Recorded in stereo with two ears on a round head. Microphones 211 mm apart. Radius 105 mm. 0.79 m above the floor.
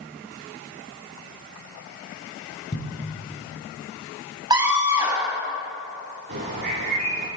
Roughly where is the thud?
Left.